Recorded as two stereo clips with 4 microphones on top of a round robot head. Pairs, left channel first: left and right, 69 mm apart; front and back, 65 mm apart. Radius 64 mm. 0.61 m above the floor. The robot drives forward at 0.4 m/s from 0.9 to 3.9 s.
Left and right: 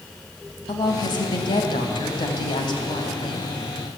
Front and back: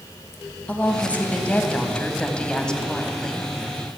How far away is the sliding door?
No sliding door in this recording.